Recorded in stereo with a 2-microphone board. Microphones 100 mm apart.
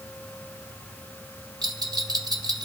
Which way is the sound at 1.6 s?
40° right (ahead or behind).